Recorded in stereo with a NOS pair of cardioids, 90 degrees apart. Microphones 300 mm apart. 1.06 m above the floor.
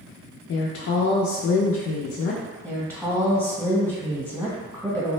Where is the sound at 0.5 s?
55° left, 0.5 m.